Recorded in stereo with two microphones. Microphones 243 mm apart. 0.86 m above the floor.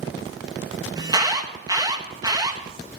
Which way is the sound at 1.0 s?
15° right (ahead or behind).